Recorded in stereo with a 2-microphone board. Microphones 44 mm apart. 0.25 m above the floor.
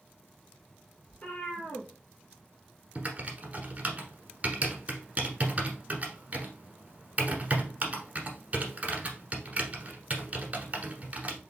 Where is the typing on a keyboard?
35° right (ahead or behind), 1.2 m.